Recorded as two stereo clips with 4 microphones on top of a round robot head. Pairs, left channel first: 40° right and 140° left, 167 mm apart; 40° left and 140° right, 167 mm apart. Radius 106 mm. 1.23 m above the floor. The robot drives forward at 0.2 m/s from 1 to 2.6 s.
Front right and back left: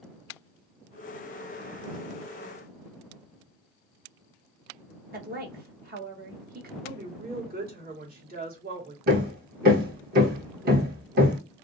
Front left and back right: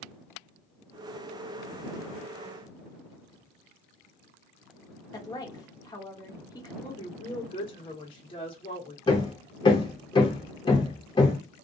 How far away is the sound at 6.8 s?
About 1.3 m.